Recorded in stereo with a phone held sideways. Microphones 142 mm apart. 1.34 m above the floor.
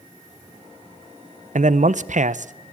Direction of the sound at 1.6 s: 60° right (ahead or behind).